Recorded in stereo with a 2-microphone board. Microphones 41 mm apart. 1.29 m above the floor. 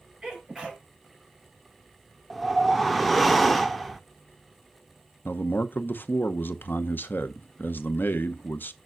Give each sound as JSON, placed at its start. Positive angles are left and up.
{"t": 0.2, "sound": "a sneeze", "side_deg": -15, "distance_m": 5.0}
{"t": 2.3, "sound": "a whoosh", "side_deg": 0, "distance_m": 0.6}
{"t": 5.2, "sound": "a man speaking", "side_deg": 55, "distance_m": 0.8}